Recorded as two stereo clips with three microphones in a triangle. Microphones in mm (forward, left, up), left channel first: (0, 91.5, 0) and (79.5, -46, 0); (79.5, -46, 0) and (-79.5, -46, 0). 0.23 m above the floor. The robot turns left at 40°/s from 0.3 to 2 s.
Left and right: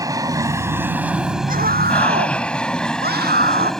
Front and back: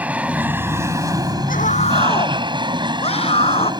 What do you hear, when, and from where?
0.0 s an aircraft: 105° right; by 3.8 s 155° right
1.5 s a scream: 30° right; by 3.7 s 50° right